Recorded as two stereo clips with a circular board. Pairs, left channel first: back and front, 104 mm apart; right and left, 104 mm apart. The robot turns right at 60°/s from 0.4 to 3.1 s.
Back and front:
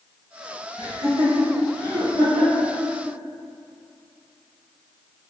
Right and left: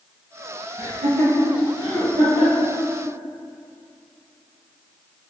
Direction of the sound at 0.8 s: 160° left.